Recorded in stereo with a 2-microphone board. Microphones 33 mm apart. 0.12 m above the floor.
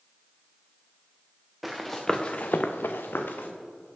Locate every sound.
1.6 s running footsteps: 5° right (ahead or behind), 1.2 m; by 3.5 s 65° left (ahead or behind), 1.2 m